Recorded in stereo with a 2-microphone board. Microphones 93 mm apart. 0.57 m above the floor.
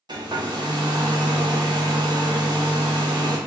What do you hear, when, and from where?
0.1 s a hair dryer: 50° right (ahead or behind), 0.7 m